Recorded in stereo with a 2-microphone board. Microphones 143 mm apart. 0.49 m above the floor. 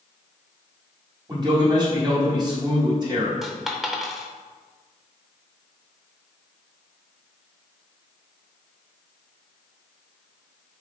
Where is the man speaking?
30° right (ahead or behind), 1.4 m.